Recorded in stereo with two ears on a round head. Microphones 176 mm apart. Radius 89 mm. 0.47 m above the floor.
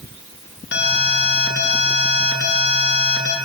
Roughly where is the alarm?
Left.